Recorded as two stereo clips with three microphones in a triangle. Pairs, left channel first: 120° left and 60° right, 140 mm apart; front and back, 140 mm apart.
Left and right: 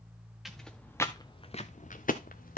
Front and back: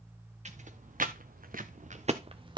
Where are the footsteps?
150° right, 1.1 m; by 2.6 s 120° left, 1.1 m.